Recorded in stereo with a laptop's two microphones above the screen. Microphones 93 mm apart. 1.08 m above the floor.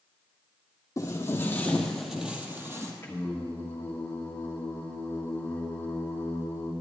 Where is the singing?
25° left (ahead or behind), 1.3 m.